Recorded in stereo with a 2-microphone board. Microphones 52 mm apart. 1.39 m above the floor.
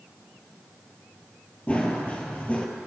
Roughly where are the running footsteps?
Left.